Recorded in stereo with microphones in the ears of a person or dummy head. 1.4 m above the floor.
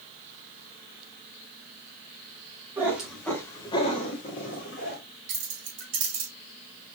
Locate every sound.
2.8 s a cat meowing: 15° right (ahead or behind), 1.5 m; by 5.0 s 55° left (ahead or behind), 2.5 m
5.3 s keys jangling: 70° right (ahead or behind), 2.5 m